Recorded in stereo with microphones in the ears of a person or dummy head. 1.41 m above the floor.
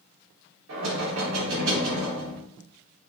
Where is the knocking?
70° right (ahead or behind), 3.5 m.